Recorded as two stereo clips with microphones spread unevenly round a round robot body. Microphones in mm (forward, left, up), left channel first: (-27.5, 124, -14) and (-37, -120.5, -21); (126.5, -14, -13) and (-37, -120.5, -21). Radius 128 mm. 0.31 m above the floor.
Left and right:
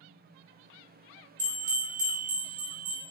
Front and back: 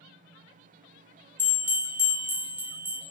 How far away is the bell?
About 1.4 m.